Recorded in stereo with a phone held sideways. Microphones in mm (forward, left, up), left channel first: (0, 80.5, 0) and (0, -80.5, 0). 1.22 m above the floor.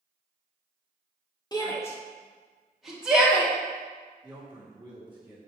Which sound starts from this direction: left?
A shout, at 1.5 s.